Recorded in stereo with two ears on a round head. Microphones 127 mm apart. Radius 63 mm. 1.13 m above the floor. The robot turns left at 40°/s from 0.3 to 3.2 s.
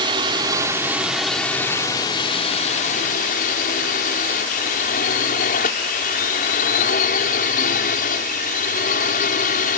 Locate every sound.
0.0 s a drone: 145° right; by 9.8 s 100° left